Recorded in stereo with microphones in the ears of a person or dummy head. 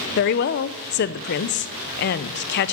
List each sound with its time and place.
0.2 s a woman speaking: 50° left (ahead or behind), 0.6 m